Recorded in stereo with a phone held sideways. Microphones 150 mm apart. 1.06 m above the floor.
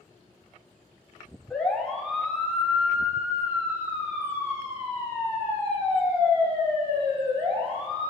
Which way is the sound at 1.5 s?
5° left (ahead or behind).